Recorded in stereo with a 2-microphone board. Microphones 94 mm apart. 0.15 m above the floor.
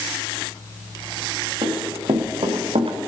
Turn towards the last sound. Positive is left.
turn(degrees=-75)  # may be behind; listen again after turning